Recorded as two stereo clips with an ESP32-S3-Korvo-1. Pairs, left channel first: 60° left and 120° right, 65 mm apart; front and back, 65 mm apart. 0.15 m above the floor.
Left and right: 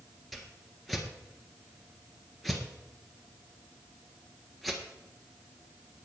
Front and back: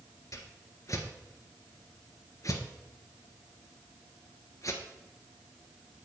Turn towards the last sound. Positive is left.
turn(degrees=-30)